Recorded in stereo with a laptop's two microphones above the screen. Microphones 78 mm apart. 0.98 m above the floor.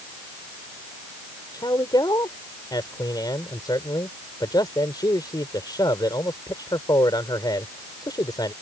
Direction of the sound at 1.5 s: 60° left (ahead or behind).